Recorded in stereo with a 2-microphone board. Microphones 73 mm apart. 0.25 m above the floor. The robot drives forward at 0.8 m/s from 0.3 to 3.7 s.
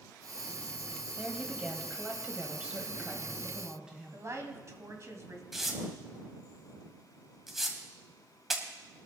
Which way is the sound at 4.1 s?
45° right (ahead or behind).